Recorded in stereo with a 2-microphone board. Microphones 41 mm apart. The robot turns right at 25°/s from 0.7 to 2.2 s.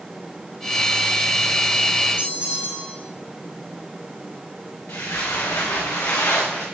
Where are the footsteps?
80° left, 2 m; by 6.7 s 65° left (ahead or behind), 3 m.